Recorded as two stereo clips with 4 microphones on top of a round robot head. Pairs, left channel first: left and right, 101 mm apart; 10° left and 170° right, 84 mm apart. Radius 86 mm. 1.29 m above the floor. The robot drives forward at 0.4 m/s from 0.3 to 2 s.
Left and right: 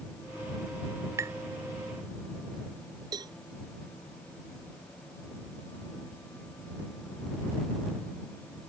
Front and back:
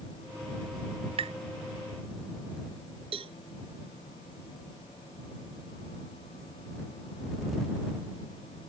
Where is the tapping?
160° right.